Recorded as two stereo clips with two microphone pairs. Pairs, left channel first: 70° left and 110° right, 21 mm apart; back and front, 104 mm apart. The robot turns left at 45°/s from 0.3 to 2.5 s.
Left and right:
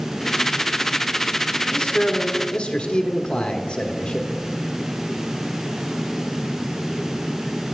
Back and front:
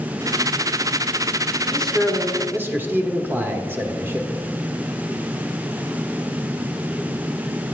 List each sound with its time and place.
1.7 s a man speaking: 105° left, 1.2 m; by 4.3 s 65° left, 1.2 m